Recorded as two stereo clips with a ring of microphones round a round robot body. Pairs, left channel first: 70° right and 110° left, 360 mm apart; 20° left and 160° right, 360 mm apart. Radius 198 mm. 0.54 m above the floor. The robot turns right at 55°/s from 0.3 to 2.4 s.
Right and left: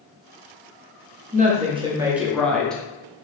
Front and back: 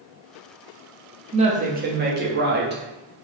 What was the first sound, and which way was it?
A woman speaking, 150° left.